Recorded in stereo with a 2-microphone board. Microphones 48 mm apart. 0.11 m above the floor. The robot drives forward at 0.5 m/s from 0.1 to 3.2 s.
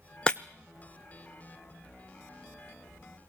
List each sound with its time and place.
0.3 s breaking glass: 20° left (ahead or behind), 0.7 m; by 0.4 s 15° left (ahead or behind), 0.8 m